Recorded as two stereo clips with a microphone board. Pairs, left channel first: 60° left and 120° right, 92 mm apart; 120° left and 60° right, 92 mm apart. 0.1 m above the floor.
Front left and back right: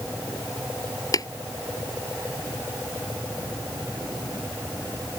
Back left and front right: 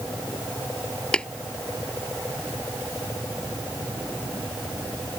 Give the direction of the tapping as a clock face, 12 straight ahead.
10 o'clock.